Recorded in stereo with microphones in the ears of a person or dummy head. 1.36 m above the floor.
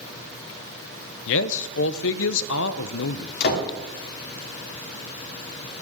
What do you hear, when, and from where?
1.3 s a man speaking: 70° left (ahead or behind), 0.8 m
3.4 s a door slam: 55° left (ahead or behind), 3 m